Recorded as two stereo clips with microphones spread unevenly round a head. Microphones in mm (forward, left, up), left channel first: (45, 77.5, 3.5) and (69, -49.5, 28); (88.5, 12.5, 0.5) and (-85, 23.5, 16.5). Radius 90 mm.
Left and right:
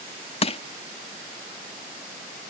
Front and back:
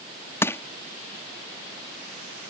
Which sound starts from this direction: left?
Crushing, at 0.4 s.